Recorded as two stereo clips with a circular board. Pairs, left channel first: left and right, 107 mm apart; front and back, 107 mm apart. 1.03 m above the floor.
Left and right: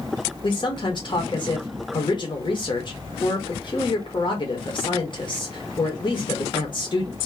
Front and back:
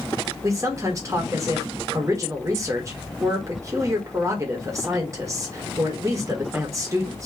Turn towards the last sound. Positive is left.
turn(degrees=125)